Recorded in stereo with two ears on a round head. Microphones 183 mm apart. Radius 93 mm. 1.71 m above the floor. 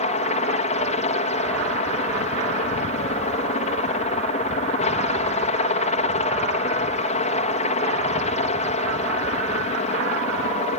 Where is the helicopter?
35° left (ahead or behind).